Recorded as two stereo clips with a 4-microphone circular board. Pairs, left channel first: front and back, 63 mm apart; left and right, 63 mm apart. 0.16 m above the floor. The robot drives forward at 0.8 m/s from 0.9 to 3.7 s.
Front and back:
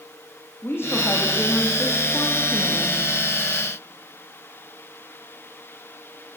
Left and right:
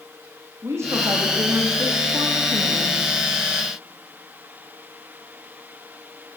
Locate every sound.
0.6 s a woman speaking: 50° right, 6.5 m; by 3.0 s 65° right, 5.5 m